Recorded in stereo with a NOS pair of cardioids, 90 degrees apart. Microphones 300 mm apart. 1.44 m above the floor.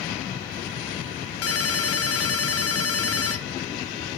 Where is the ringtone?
55° left, 1.4 m.